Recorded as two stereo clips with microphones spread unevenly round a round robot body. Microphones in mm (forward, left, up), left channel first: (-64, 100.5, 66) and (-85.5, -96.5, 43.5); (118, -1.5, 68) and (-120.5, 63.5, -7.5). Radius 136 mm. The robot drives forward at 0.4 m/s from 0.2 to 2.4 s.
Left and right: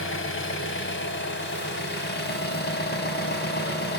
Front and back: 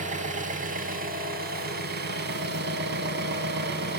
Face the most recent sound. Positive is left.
turn(degrees=120)